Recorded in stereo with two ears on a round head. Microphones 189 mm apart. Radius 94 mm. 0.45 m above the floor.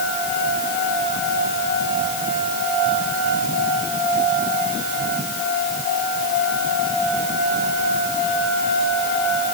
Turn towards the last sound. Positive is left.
No sound to turn to.